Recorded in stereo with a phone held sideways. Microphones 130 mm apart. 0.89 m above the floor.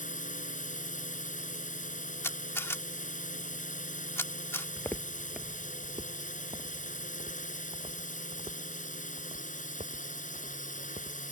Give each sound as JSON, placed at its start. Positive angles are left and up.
{"t": 0.0, "sound": "a drone", "side_deg": 75}
{"t": 2.2, "sound": "a camera shutter", "side_deg": 20}
{"t": 4.8, "sound": "footsteps", "side_deg": 25}